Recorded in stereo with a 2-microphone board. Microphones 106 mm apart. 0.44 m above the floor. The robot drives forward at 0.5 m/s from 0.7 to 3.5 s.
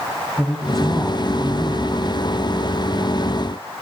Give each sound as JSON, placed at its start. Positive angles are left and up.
{"t": 0.4, "sound": "a man speaking", "side_deg": 5, "distance_m": 3.0}